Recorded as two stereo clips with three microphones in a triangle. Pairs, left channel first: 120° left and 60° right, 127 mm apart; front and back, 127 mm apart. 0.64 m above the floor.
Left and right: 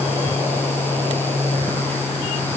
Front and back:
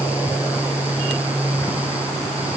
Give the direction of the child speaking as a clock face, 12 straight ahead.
I don't hear a child speaking.